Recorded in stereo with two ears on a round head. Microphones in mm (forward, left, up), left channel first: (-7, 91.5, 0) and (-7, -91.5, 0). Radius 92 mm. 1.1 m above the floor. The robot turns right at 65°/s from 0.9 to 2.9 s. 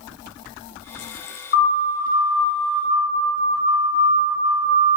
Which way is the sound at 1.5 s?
50° left (ahead or behind).